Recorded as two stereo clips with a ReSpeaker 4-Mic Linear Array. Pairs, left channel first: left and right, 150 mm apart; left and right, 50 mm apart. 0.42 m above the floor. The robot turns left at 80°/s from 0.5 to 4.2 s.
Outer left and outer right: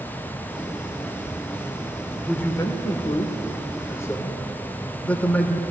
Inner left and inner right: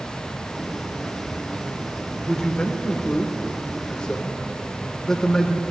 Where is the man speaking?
5° left (ahead or behind), 0.9 m; by 5.6 s 10° left (ahead or behind), 0.9 m.